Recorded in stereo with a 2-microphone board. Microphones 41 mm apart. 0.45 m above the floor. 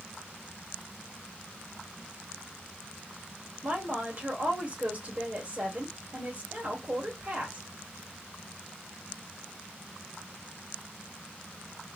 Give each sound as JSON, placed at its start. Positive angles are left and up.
{"t": 3.6, "sound": "a woman speaking", "side_deg": -35, "distance_m": 1.4}